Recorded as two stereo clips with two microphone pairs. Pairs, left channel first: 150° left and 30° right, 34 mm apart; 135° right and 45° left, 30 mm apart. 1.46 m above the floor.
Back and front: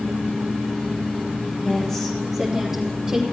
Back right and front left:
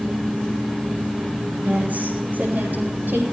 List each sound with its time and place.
1.6 s a woman speaking: 80° left, 3 m; by 3.2 s 45° left, 4 m